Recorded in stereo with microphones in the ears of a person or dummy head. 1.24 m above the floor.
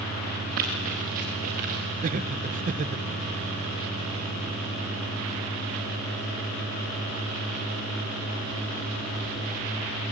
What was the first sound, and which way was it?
Running footsteps, 55° right (ahead or behind).